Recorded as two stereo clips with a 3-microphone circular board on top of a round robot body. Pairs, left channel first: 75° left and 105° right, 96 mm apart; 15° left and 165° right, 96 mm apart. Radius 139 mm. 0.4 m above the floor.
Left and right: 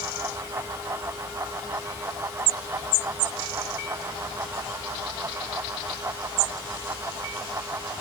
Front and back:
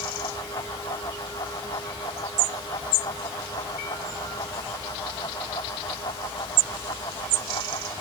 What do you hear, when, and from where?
Only background noise.